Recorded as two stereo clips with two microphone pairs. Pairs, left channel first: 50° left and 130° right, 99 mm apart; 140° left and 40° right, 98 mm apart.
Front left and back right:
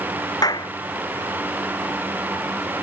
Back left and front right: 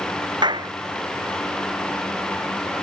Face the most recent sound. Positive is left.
turn(degrees=0)